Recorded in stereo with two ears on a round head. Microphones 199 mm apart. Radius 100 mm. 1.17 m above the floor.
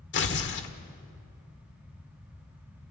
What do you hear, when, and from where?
0.1 s tearing paper: 50° left (ahead or behind), 1.6 m